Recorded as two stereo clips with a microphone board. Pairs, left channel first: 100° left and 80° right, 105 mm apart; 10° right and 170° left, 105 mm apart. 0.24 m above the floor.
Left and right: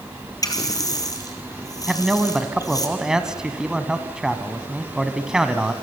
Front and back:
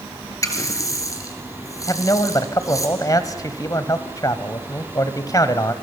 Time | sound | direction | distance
0.4 | a running tap | 45° left | 3 m
1.9 | a man speaking | straight ahead | 1.4 m